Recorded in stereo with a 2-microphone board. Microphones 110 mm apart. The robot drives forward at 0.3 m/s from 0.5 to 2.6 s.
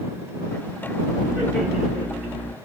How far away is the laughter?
About 2 m.